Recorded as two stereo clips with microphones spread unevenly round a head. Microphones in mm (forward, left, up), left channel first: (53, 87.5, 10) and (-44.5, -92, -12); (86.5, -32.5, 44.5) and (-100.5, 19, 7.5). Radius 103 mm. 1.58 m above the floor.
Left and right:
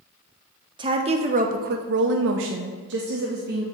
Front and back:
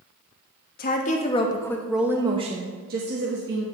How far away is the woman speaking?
About 0.8 m.